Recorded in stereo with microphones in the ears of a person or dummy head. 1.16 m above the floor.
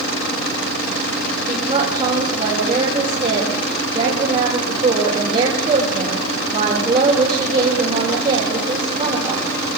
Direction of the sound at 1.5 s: 30° right (ahead or behind).